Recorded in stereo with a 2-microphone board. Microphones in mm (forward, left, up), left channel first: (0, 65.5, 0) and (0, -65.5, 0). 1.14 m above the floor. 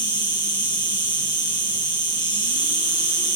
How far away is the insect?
About 1.9 m.